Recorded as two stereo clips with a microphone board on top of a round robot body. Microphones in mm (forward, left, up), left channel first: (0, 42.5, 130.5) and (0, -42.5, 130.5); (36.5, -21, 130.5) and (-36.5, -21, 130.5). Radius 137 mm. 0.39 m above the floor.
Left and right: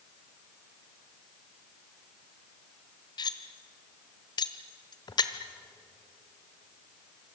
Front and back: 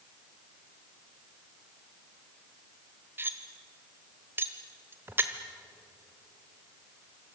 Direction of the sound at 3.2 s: 120° left.